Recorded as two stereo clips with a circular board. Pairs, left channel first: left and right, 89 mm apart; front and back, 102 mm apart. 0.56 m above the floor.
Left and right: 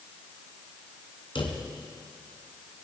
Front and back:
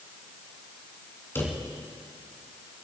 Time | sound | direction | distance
1.4 | a drawer | 70° left | 2 m